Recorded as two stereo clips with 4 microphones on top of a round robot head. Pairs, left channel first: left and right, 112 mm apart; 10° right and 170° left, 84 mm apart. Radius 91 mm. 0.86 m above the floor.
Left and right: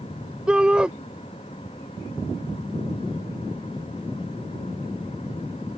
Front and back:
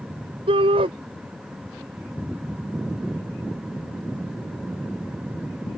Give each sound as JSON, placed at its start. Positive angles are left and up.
{"t": 0.5, "sound": "a shout", "azimuth_deg": -170}